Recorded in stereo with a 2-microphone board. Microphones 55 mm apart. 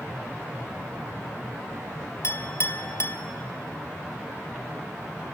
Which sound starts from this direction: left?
A clink, at 2.2 s.